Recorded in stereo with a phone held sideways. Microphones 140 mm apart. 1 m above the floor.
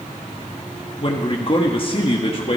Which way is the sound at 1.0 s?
40° left (ahead or behind).